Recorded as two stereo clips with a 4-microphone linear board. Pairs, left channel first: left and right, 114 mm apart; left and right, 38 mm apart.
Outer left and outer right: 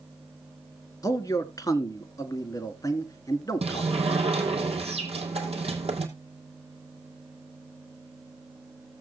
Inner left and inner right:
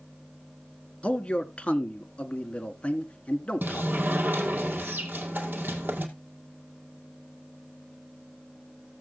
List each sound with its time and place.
1.0 s a man speaking: 30° left (ahead or behind), 1.4 m
3.6 s a sliding door: 60° right (ahead or behind), 2 m